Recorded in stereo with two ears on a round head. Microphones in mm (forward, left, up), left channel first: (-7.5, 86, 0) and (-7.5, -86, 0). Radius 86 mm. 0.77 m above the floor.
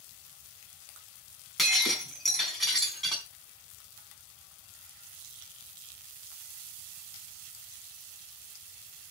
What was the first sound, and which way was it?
Breaking glass, centre (ahead or behind).